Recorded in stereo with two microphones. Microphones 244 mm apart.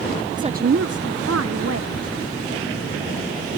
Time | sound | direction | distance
0.4 | a woman speaking | 15° right (ahead or behind) | ?